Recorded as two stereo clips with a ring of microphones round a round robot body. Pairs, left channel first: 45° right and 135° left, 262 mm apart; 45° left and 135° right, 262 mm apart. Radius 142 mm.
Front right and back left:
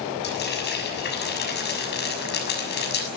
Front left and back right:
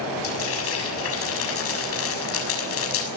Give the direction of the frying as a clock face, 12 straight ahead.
12 o'clock.